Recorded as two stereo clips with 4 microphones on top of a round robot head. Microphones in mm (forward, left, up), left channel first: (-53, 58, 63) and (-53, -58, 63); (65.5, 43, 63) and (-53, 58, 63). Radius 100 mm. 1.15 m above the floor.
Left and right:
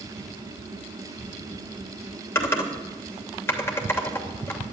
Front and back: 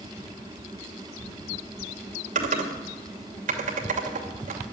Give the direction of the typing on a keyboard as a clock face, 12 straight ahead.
7 o'clock.